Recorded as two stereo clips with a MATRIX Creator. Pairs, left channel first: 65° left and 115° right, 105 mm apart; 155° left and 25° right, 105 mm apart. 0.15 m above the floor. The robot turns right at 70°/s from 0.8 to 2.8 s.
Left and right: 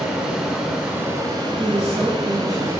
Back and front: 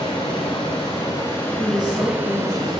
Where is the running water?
170° left, 1.0 m; by 2.8 s 50° right, 1.0 m.